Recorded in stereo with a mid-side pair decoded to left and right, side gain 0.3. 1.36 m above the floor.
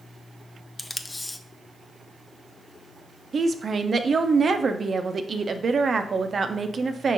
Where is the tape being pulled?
20° left, 0.5 m.